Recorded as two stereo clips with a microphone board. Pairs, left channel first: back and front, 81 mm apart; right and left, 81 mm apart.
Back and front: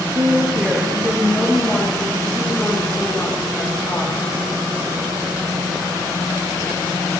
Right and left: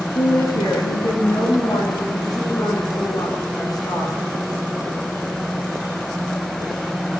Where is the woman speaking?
55° right, 2 m; by 4.1 s 125° right, 6 m.